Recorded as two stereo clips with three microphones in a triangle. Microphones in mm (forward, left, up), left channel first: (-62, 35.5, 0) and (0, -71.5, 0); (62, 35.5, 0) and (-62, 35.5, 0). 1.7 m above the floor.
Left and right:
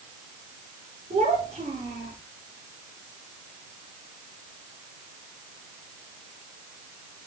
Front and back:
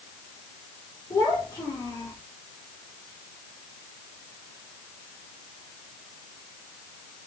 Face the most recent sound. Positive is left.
turn(degrees=-65)